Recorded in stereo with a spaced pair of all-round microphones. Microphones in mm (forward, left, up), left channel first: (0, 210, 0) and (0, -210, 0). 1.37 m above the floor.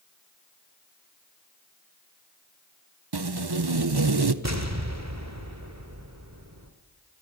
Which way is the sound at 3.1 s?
65° right (ahead or behind).